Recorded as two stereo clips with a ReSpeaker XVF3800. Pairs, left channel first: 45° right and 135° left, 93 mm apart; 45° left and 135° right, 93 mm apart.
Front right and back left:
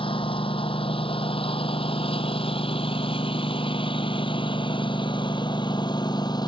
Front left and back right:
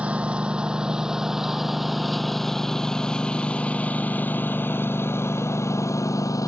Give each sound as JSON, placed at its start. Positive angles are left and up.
{"t": 0.0, "sound": "a lawn mower", "azimuth_deg": -55}